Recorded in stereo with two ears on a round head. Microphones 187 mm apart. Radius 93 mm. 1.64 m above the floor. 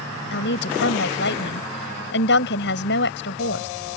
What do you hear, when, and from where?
0.3 s a woman speaking: 60° left (ahead or behind)